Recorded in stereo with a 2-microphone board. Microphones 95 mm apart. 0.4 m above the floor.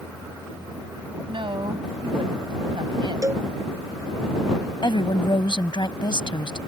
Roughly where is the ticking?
No ticking in this recording.